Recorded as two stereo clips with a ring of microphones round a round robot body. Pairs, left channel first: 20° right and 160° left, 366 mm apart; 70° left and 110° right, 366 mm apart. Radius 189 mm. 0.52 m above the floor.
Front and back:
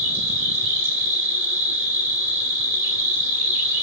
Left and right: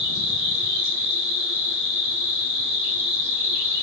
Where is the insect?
160° right, 2.5 m.